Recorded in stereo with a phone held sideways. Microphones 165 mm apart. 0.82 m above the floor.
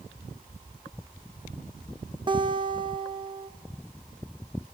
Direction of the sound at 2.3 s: 30° right (ahead or behind).